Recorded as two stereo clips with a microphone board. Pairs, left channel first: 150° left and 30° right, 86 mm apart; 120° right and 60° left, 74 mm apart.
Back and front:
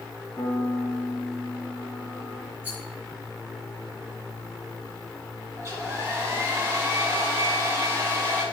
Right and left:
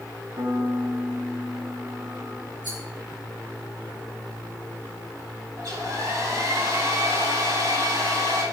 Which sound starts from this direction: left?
A piano, at 0.4 s.